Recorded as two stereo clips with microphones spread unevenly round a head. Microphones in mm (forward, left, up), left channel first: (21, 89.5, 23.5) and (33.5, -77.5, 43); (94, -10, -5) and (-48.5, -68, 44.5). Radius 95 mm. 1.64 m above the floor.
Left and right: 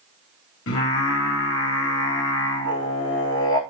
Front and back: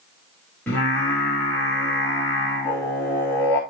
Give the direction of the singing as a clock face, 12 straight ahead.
9 o'clock.